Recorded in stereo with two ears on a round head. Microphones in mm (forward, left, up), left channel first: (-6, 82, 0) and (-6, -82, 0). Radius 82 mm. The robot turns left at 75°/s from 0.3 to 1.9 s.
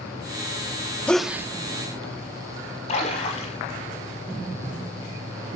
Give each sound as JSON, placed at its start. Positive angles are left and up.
{"t": 1.1, "sound": "a sneeze", "azimuth_deg": 10, "distance_m": 0.8}
{"t": 2.9, "sound": "a splash", "side_deg": 35, "distance_m": 5.5}